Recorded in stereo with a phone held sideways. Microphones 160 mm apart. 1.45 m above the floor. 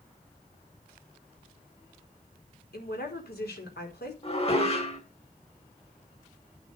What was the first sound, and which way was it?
A woman speaking, 90° left.